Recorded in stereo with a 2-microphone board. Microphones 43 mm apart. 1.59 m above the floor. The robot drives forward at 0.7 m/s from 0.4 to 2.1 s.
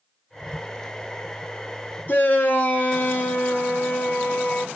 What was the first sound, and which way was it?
A shout, 45° left (ahead or behind).